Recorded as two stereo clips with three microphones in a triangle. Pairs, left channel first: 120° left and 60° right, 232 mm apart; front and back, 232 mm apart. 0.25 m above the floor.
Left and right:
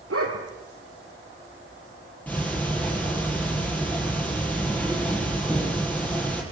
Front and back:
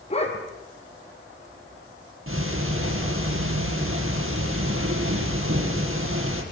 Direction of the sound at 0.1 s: 65° right.